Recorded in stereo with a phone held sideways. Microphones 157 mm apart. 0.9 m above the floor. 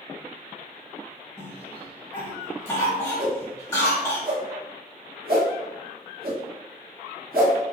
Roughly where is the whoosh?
Right.